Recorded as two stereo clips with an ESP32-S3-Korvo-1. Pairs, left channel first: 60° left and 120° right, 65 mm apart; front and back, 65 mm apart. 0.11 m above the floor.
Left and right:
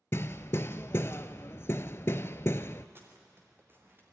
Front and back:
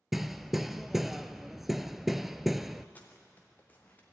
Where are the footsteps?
65° right, 4 m.